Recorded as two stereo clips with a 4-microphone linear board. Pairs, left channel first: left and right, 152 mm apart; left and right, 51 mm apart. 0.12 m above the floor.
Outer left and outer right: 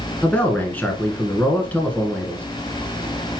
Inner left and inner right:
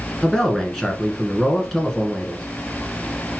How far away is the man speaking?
About 1.4 m.